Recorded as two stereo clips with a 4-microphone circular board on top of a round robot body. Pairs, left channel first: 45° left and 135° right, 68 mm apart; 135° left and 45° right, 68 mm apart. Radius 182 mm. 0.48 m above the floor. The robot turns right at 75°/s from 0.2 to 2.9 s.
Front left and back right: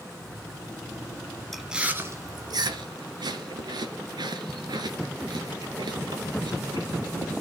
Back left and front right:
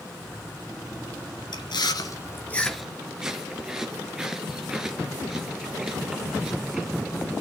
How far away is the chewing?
About 2.5 m.